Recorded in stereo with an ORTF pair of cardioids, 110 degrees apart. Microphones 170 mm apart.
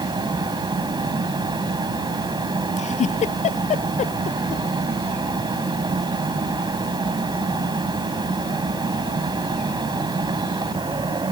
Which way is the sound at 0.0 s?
25° right.